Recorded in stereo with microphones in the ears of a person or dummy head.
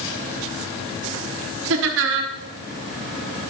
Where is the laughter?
65° right (ahead or behind), 1.1 m.